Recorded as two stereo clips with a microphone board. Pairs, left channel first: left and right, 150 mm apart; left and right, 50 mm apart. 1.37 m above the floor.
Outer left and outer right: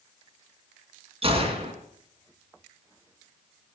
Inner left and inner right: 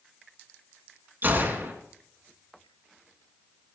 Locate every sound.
1.2 s a gunshot: 40° right (ahead or behind), 2.5 m